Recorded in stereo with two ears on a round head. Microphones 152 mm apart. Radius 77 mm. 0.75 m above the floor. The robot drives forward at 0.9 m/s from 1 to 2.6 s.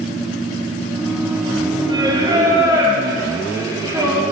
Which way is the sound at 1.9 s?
30° right (ahead or behind).